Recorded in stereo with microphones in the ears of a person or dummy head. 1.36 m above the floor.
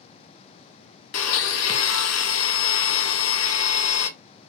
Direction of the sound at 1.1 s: 85° left.